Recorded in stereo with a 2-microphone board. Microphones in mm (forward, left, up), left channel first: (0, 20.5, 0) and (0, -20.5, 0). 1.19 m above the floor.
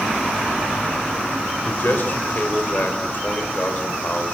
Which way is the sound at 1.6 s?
50° left (ahead or behind).